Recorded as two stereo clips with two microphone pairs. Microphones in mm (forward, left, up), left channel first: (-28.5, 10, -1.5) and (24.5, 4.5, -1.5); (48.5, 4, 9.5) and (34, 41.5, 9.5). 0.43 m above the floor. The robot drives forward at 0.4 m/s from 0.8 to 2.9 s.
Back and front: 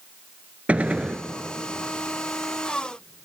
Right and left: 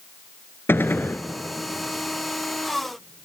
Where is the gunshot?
65° right, 0.9 m; by 1.2 s 75° right, 0.9 m.